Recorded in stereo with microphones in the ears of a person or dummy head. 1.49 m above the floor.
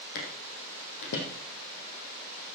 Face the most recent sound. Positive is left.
turn(degrees=60)  # may be behind; listen again after turning